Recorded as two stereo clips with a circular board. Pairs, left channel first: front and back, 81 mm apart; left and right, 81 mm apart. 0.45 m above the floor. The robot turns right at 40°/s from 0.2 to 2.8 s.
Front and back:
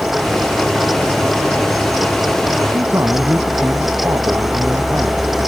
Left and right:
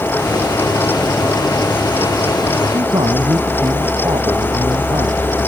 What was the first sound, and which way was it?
A man speaking, 125° right.